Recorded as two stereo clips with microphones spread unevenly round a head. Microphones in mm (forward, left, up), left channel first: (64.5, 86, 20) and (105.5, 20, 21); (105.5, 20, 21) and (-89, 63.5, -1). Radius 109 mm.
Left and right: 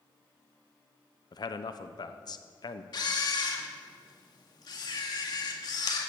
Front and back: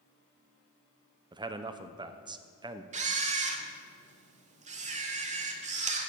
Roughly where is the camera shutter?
Behind left.